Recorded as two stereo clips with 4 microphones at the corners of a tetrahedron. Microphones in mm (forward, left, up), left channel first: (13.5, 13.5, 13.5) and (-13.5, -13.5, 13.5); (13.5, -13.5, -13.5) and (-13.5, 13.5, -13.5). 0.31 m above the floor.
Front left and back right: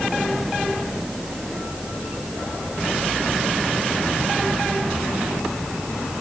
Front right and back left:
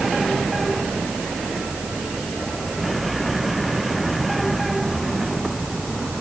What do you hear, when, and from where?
Only background noise.